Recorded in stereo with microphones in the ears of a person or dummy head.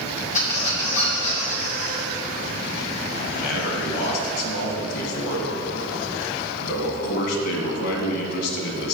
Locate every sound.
0.3 s a squeak: 40° left (ahead or behind), 2 m
3.3 s a man speaking: 60° left (ahead or behind), 1.7 m